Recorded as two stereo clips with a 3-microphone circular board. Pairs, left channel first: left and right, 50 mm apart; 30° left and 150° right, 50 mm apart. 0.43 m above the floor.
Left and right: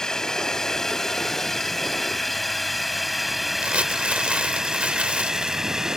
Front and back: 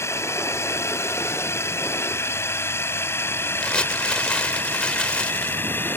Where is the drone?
15° left; by 6.0 s 10° right.